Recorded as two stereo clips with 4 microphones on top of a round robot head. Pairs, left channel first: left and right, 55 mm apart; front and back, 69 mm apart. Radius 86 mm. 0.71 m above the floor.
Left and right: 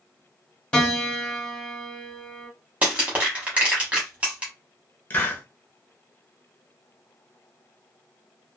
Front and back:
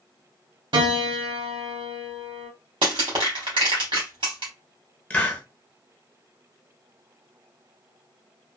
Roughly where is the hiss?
Ahead left.